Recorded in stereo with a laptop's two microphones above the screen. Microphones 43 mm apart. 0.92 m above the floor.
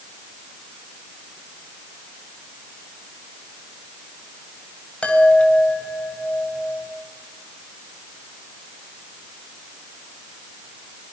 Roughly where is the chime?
Left.